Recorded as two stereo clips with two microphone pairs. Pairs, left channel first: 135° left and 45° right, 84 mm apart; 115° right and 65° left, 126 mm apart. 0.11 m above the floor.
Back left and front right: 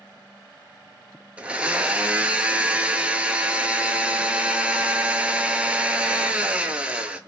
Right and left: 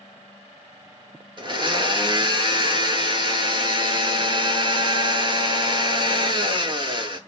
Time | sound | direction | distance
1.4 | a blender | 25° left | 0.5 m